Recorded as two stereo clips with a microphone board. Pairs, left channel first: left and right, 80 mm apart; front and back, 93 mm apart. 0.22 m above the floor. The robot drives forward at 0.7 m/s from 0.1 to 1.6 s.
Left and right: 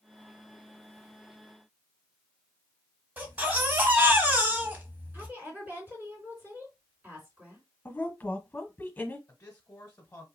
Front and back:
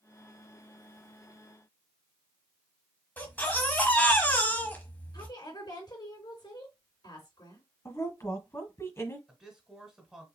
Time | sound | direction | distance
3.2 | a baby crying | 50° right | 1.1 m
5.1 | a woman speaking | 30° right | 3 m
7.8 | a woman speaking | 35° left | 1.3 m
9.3 | a man speaking | 115° left | 1.1 m